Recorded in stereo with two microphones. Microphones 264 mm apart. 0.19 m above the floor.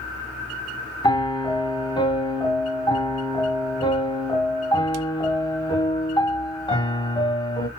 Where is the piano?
15° left (ahead or behind), 0.7 m.